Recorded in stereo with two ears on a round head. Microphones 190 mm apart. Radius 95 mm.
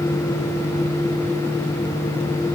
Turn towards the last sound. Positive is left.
No sound to turn to.